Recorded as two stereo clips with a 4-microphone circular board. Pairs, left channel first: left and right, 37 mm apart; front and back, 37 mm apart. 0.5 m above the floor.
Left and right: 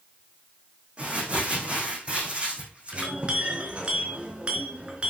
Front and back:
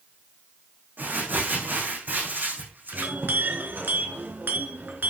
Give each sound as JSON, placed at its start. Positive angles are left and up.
{"t": 1.0, "sound": "crumpling", "azimuth_deg": -150, "distance_m": 6.0}
{"t": 2.9, "sound": "a clink", "azimuth_deg": -150, "distance_m": 3.5}